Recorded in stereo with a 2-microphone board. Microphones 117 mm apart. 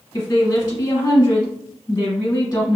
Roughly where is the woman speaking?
Left.